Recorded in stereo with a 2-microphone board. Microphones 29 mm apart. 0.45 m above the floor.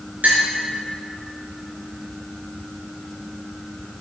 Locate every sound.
0.2 s a clink: 80° right, 4.5 m